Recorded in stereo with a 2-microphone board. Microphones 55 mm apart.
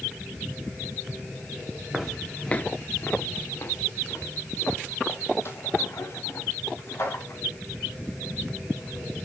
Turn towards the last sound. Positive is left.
turn(degrees=50)  # may be behind; listen again after turning